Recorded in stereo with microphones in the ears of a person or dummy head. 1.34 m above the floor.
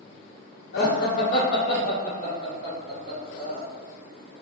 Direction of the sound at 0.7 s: 55° left (ahead or behind).